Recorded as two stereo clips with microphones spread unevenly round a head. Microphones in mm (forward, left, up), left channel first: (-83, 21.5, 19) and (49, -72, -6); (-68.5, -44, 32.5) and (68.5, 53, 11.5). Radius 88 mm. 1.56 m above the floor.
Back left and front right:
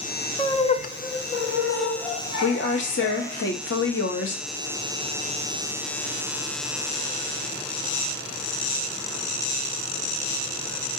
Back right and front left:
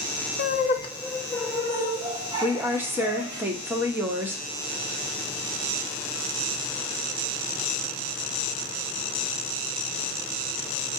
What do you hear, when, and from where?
0.4 s laughter: 150° right, 0.6 m; by 3.4 s 100° left, 2.5 m
2.4 s a woman speaking: 115° left, 0.9 m